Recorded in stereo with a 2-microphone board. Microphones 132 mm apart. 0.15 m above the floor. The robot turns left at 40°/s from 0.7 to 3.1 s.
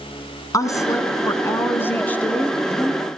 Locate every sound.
0.5 s a woman speaking: 25° left (ahead or behind), 1.6 m; by 3.0 s centre (ahead or behind), 1.6 m